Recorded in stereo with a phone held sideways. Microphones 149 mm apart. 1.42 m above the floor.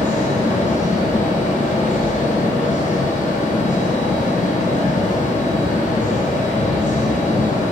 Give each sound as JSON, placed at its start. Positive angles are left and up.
{"t": 0.0, "sound": "a fan", "side_deg": 55, "distance_m": 0.7}